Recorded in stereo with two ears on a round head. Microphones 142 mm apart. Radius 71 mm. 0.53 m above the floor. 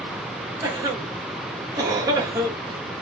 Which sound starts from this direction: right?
A cough, at 0.6 s.